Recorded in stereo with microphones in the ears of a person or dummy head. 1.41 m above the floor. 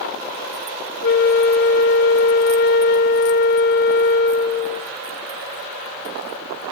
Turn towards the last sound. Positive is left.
turn(degrees=50)  # may be behind; listen again after turning